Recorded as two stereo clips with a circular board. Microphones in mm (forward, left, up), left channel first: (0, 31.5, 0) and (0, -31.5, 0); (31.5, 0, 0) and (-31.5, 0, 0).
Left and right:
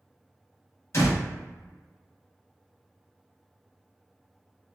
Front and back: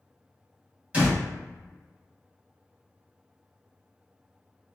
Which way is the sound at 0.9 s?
115° left.